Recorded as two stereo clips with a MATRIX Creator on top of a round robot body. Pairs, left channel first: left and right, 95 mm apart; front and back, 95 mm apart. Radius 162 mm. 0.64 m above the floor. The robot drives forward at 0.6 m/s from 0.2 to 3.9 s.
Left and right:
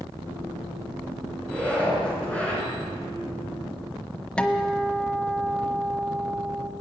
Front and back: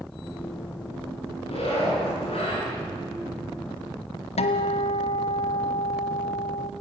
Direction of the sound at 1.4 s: 10° left.